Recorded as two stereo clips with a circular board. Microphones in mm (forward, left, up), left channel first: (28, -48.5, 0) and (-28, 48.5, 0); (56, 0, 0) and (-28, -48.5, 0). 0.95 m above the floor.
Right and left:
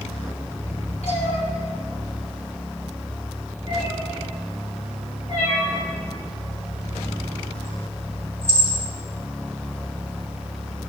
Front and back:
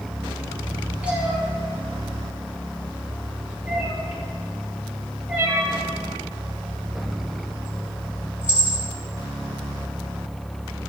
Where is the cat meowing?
75° right, 3.5 m.